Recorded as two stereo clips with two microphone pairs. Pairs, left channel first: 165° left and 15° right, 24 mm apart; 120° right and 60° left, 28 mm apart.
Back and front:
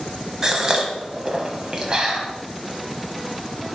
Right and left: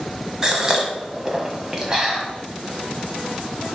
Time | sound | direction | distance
0.4 | a gasp | 25° left | 1.4 m